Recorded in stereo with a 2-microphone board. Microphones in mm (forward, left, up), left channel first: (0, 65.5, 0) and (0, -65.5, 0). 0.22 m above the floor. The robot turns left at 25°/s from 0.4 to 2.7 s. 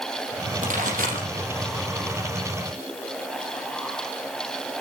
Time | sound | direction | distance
0.6 | a pop | 65° right (ahead or behind) | 6 m